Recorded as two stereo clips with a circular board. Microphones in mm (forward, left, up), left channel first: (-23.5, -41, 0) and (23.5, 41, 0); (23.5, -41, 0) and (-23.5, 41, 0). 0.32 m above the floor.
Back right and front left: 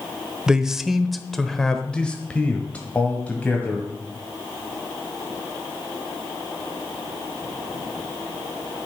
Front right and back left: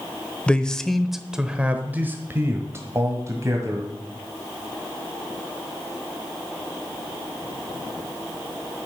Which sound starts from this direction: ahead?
A man speaking, at 0.5 s.